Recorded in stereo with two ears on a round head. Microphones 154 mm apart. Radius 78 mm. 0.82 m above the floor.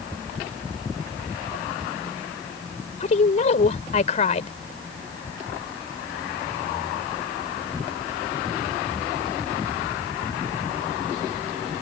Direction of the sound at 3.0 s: 45° left (ahead or behind).